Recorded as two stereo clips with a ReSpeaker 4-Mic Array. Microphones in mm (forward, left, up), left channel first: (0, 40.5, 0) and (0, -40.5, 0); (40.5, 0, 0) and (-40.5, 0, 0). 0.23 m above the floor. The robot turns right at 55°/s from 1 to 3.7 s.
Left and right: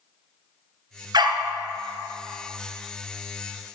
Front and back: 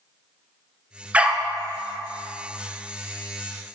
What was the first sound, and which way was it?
A dog barking, 110° right.